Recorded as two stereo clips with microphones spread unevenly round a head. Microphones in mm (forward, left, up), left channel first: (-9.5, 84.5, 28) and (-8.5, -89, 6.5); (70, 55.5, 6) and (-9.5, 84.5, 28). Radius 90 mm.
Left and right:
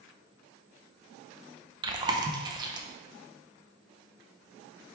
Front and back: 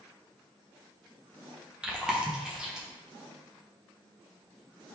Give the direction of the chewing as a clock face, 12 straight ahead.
3 o'clock.